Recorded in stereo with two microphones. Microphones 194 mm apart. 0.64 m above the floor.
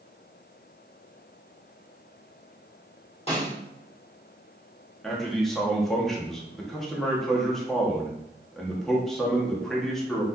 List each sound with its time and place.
3.3 s a snare drum: 35° left (ahead or behind), 1.8 m
5.0 s a man speaking: centre (ahead or behind), 0.9 m